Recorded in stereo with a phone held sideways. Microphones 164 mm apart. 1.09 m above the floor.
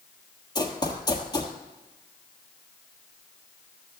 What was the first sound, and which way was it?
Running footsteps, 25° left (ahead or behind).